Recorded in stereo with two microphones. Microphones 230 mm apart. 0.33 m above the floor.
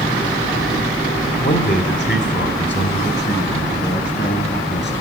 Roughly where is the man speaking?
Left.